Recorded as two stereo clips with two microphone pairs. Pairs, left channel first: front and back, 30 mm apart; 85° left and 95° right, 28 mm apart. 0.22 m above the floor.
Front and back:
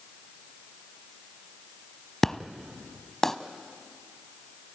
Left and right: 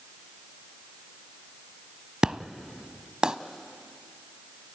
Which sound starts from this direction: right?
An explosion, at 2.2 s.